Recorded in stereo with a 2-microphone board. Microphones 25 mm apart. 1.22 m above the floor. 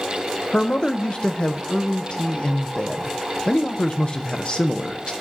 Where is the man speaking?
40° left (ahead or behind), 0.6 m.